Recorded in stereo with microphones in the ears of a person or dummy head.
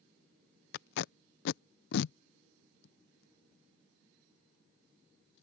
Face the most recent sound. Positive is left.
turn(degrees=65)  # may be behind; listen again after turning